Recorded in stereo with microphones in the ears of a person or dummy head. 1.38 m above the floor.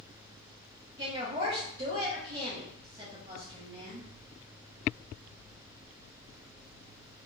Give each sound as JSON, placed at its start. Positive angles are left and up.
{"t": 1.0, "sound": "a woman speaking", "side_deg": -20, "distance_m": 0.9}